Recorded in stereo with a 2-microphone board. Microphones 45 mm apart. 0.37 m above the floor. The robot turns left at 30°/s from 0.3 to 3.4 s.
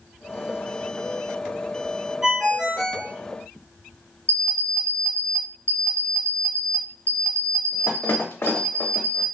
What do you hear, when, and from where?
2.2 s a ringtone: 15° right (ahead or behind), 0.6 m; by 3.1 s 10° left (ahead or behind), 0.6 m
4.3 s an alarm clock: 60° left (ahead or behind), 0.6 m